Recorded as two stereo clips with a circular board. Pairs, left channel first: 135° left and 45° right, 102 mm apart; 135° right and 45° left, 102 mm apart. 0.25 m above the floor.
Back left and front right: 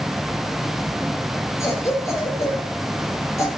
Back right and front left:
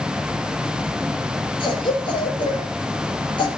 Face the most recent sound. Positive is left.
turn(degrees=-165)